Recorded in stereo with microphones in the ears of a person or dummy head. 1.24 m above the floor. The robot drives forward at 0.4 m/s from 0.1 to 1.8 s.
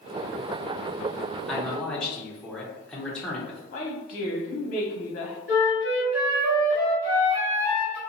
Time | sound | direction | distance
1.5 | a man speaking | centre (ahead or behind) | 0.6 m
3.7 | a woman speaking | 40° left (ahead or behind) | 0.9 m
5.5 | a flute | 20° right (ahead or behind) | 1.6 m